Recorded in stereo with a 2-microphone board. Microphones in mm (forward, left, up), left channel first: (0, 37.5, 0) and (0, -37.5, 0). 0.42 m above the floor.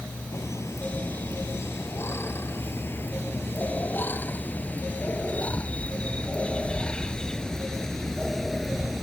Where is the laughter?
40° left (ahead or behind); by 9.0 s centre (ahead or behind).